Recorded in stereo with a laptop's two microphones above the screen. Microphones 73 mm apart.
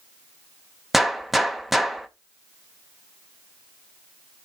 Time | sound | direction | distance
0.9 | a gunshot | centre (ahead or behind) | 1.0 m